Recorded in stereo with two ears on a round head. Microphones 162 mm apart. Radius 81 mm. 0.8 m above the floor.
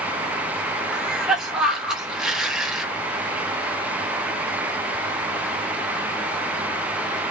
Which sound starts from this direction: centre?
A cough, at 0.9 s.